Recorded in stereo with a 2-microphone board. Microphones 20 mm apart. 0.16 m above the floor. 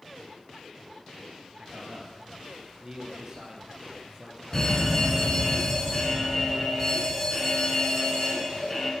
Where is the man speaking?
35° right (ahead or behind), 3 m; by 4.4 s 20° right (ahead or behind), 4.5 m.